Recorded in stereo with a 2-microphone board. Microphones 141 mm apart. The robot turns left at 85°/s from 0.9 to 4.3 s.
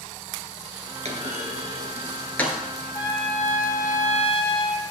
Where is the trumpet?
155° left, 1.2 m; by 4.8 s 40° left, 1.2 m.